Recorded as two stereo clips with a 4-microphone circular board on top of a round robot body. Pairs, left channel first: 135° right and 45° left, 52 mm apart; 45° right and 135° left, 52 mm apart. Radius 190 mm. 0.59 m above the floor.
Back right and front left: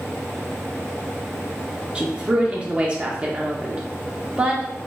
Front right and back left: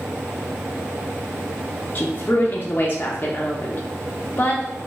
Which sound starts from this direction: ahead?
A woman speaking, at 1.9 s.